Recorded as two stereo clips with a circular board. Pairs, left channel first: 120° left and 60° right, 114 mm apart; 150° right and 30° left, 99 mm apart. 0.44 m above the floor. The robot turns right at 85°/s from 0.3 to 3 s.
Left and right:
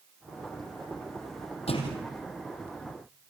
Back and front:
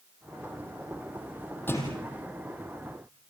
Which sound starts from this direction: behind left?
A thud, at 1.7 s.